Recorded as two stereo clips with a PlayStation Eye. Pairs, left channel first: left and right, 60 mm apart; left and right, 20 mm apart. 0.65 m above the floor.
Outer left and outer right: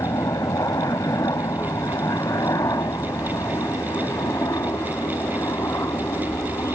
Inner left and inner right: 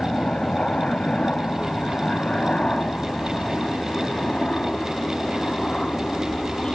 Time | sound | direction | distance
0.0 | a helicopter | 70° left (ahead or behind) | ?